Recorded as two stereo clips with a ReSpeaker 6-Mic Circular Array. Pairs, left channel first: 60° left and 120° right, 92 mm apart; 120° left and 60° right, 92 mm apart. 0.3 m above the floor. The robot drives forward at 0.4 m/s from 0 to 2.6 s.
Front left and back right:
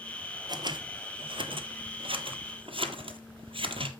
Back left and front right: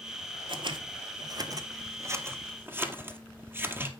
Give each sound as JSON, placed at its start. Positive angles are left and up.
{"t": 0.5, "sound": "scissors", "azimuth_deg": -80, "distance_m": 1.0}